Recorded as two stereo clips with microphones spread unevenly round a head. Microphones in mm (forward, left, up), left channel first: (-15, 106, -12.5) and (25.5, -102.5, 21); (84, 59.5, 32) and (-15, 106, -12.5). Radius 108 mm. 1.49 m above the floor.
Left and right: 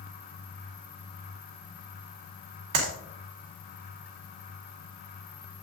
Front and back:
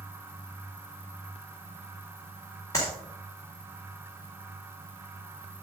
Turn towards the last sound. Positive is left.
turn(degrees=-95)